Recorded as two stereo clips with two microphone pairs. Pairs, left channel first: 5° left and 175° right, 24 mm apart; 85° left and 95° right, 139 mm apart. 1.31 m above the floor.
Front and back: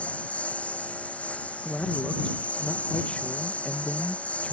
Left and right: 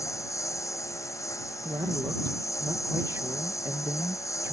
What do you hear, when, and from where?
0.0 s a lawn mower: 20° left
1.6 s a man speaking: 25° right